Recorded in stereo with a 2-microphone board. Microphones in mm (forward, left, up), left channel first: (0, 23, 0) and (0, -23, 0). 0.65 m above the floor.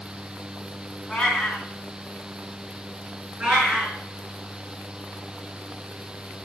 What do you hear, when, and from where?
1.1 s a cat meowing: 15° left (ahead or behind), 2.5 m
3.4 s a cat meowing: 25° right (ahead or behind), 5.5 m